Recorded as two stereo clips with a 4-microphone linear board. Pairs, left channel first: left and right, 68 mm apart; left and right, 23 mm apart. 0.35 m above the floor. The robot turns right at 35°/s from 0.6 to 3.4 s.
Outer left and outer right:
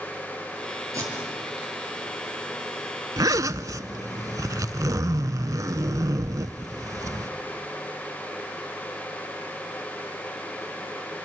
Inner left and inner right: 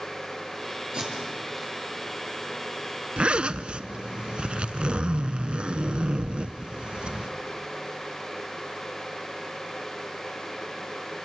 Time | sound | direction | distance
0.9 | tape being pulled | 45° right (ahead or behind) | 5.5 m
3.2 | a zipper | 60° right (ahead or behind) | 0.6 m